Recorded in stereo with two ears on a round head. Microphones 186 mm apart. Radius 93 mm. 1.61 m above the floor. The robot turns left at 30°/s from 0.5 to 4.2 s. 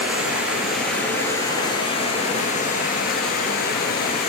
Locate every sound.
0.0 s running water: 175° right, 2.5 m; by 4.3 s 75° left, 2.5 m